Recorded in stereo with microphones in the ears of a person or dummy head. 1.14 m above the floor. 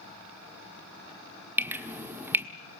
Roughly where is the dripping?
Centre.